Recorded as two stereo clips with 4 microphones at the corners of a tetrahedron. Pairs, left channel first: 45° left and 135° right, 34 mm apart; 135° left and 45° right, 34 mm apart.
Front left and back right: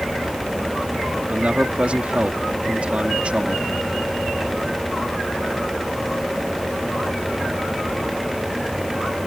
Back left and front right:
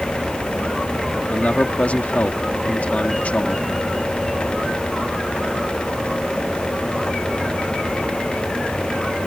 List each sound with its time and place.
1.3 s a man speaking: 175° left